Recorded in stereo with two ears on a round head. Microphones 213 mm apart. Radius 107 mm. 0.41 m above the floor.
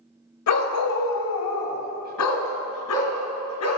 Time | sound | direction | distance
0.5 | a dog barking | 75° left (ahead or behind) | 0.9 m